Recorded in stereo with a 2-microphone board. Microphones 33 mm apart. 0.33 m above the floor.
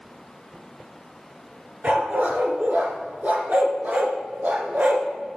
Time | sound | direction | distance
1.8 | a dog barking | 50° right (ahead or behind) | 1.4 m